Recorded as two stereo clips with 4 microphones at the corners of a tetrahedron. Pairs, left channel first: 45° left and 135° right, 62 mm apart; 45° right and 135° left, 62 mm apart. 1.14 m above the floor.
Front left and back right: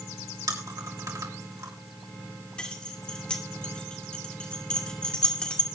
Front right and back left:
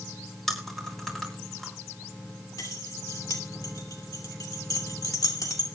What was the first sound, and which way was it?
Chewing, 130° right.